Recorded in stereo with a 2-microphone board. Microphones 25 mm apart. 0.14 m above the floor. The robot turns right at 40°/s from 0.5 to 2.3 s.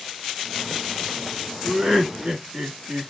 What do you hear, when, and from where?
1.6 s laughter: 10° right (ahead or behind), 1.6 m; by 3.1 s 20° right (ahead or behind), 1.6 m